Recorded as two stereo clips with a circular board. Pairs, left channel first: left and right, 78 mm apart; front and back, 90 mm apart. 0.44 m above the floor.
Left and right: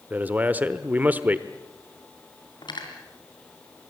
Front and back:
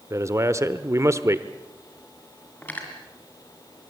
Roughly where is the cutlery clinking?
Left.